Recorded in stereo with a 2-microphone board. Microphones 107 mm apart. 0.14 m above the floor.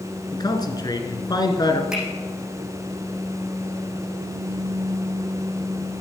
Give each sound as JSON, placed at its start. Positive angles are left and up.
{"t": 0.3, "sound": "a man speaking", "side_deg": 40, "distance_m": 1.5}
{"t": 1.9, "sound": "a finger snap", "side_deg": -5, "distance_m": 7.0}